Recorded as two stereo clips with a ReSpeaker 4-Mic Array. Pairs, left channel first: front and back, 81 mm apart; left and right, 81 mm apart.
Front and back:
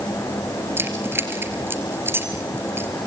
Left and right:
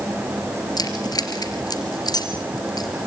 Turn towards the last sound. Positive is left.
turn(degrees=120)